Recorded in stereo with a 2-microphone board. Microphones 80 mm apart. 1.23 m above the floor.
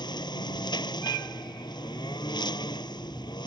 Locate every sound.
0.0 s a lawn mower: 65° left (ahead or behind)